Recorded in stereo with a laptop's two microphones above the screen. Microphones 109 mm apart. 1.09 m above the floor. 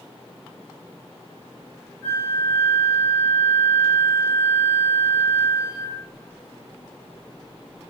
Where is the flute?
5° left (ahead or behind), 1.4 m.